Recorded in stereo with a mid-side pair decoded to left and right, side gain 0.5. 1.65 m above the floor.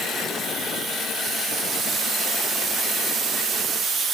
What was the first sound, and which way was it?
Only background noise.